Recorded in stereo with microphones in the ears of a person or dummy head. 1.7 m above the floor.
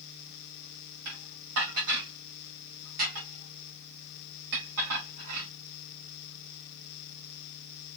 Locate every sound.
1.1 s dishes clattering: 65° right (ahead or behind), 2.5 m